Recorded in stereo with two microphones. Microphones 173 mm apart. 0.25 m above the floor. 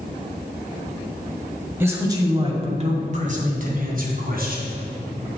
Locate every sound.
1.8 s a man speaking: 15° right (ahead or behind), 1.5 m; by 4.7 s 65° right (ahead or behind), 3 m